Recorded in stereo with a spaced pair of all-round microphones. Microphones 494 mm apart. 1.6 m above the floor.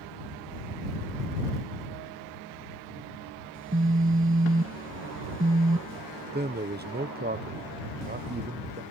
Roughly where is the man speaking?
Right.